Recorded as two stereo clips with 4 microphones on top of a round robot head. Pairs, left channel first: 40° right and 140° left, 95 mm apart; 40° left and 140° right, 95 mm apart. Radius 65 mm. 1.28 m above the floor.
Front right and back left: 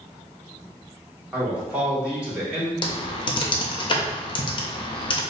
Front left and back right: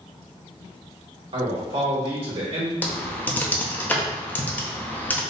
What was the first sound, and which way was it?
A man speaking, 145° right.